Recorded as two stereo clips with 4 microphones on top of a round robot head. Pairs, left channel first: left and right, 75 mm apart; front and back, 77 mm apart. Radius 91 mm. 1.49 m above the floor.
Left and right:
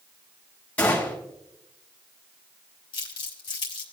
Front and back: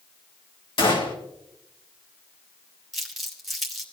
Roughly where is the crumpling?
Left.